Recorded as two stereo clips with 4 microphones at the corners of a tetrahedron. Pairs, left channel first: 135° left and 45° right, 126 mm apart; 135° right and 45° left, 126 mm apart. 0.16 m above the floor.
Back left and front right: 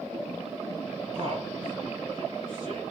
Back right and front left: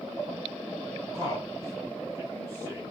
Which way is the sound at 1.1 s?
10° right.